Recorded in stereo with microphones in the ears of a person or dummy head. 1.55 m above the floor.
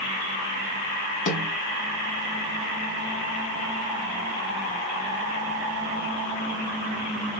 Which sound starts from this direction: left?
A snare drum, at 1.3 s.